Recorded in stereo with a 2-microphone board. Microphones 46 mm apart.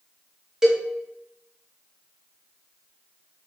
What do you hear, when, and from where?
0.6 s a cowbell: 10° right (ahead or behind), 1.0 m